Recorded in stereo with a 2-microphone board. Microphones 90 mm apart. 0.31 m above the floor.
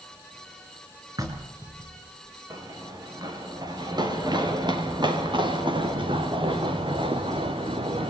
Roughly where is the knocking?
Right.